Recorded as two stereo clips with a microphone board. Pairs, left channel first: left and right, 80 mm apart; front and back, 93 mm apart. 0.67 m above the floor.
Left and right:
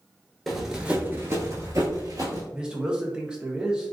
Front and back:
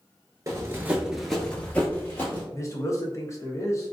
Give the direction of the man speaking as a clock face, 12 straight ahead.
1 o'clock.